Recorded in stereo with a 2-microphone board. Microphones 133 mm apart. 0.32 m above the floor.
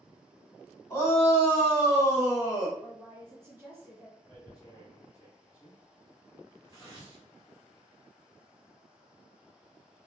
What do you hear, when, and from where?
0.9 s a shout: 25° left (ahead or behind), 2.0 m; by 2.7 s 30° left (ahead or behind), 1.0 m
2.8 s a woman speaking: 20° right (ahead or behind), 1.3 m
4.3 s tearing paper: 30° left (ahead or behind), 1.6 m